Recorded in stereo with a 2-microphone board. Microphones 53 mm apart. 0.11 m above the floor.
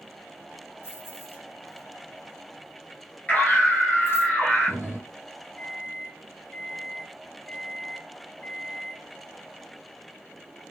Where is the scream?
25° left (ahead or behind), 1.8 m.